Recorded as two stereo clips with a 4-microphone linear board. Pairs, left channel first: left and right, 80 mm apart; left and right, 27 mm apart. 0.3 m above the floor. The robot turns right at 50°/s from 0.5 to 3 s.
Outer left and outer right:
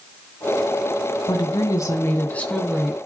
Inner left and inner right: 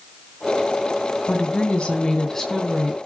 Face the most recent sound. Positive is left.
turn(degrees=-175)